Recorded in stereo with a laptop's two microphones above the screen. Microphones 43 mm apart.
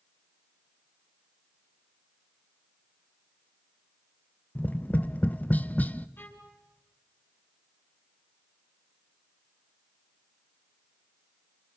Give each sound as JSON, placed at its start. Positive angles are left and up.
{"t": 4.5, "sound": "tapping", "side_deg": 40, "distance_m": 0.6}
{"t": 6.2, "sound": "a violin", "side_deg": 65, "distance_m": 6.0}